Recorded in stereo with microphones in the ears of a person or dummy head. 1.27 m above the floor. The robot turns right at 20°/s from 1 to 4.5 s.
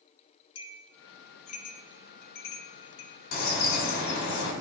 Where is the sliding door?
No sliding door in this recording.